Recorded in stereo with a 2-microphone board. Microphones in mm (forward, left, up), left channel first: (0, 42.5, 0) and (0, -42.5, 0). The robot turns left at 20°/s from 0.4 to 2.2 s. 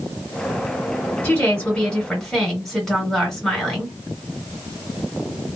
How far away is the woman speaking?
About 1.7 m.